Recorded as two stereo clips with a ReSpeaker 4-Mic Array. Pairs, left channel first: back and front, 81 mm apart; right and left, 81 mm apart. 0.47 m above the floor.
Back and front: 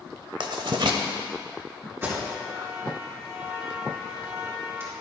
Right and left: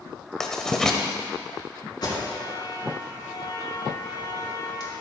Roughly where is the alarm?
Ahead right.